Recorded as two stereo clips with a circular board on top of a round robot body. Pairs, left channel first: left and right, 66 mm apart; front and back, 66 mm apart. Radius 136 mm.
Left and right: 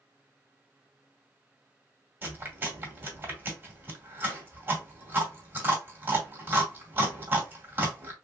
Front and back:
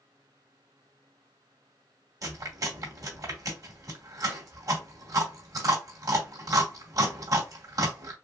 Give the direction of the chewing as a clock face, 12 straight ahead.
5 o'clock.